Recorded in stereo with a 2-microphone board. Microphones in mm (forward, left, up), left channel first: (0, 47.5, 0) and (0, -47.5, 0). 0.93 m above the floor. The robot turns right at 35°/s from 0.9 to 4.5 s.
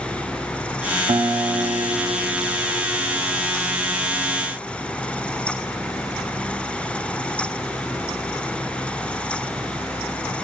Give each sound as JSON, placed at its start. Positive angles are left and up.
{"t": 1.1, "sound": "a guitar", "azimuth_deg": -100, "distance_m": 0.9}